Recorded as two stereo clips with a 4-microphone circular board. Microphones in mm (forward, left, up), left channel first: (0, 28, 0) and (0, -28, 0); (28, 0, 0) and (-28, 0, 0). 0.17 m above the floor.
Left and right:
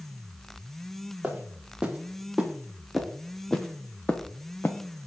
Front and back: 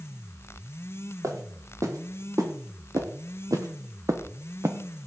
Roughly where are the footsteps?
Behind.